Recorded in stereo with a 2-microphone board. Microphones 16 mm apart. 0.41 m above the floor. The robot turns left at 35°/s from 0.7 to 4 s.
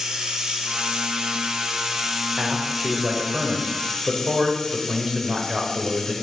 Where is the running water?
95° right, 1.3 m; by 6.2 s 150° left, 1.3 m.